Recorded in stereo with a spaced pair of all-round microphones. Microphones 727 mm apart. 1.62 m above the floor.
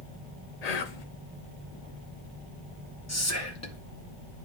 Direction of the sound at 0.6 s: 60° left (ahead or behind).